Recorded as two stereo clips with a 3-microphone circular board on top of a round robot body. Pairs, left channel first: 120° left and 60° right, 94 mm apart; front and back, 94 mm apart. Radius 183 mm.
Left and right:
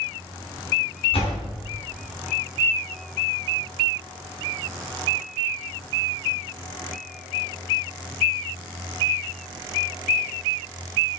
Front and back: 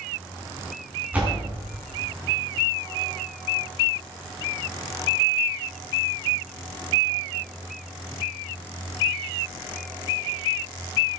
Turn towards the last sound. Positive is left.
turn(degrees=105)